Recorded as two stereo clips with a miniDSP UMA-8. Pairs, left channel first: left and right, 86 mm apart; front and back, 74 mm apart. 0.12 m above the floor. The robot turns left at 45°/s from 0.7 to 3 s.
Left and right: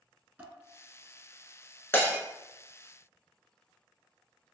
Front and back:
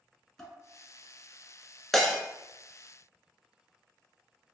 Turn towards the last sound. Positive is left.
turn(degrees=35)